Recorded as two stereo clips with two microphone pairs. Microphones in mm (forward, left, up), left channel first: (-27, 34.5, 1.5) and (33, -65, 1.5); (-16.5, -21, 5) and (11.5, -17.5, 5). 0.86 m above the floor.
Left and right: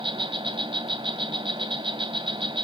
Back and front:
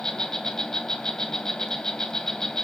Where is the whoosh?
No whoosh in this recording.